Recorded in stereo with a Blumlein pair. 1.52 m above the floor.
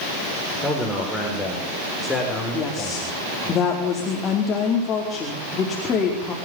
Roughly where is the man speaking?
Ahead.